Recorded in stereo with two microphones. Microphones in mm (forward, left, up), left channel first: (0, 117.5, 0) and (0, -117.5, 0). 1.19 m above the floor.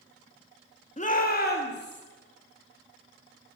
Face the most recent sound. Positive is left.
turn(degrees=45)  # may be behind; listen again after turning